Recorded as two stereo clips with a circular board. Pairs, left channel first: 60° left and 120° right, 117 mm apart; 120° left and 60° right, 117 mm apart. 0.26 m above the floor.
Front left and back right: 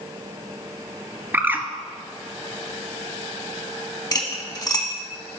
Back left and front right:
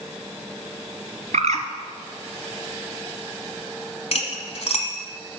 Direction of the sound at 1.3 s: 45° right.